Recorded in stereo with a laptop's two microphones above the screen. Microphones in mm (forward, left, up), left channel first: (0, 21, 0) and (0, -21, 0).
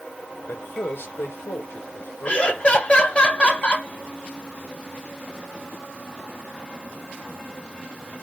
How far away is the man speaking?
About 0.8 m.